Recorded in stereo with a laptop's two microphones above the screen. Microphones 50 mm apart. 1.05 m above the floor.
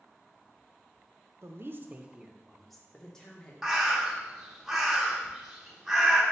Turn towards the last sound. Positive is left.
turn(degrees=-5)  # may be behind; listen again after turning